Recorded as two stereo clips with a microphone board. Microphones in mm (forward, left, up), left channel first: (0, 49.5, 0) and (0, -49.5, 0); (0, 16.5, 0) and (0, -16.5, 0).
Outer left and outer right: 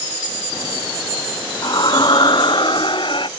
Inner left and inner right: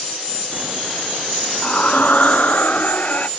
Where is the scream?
45° left (ahead or behind); by 3.3 s 55° left (ahead or behind).